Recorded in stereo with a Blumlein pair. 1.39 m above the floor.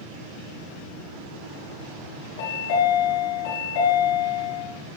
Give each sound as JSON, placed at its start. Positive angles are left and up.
{"t": 2.4, "sound": "a chime", "azimuth_deg": 55, "distance_m": 3.5}